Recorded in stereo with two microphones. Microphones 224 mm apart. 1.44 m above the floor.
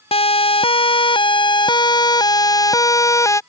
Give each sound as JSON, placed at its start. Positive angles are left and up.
{"t": 0.1, "sound": "a siren", "side_deg": 25}